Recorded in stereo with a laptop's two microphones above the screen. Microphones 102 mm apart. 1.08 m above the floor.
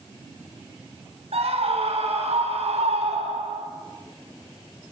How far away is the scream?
About 7.5 m.